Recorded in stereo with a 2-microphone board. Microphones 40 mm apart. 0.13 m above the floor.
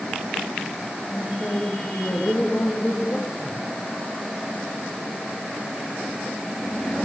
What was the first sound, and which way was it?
A woman speaking, 50° left (ahead or behind).